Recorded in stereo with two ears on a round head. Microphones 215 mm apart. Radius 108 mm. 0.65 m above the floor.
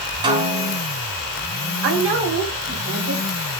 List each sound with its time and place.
0.2 s a snare drum: 20° right (ahead or behind), 3.5 m
1.8 s a woman speaking: 55° right (ahead or behind), 3 m